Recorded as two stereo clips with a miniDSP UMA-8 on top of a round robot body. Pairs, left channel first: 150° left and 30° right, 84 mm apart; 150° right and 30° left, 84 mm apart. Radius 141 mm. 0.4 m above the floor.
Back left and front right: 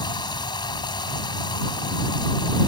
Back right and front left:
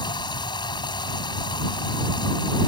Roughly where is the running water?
Behind.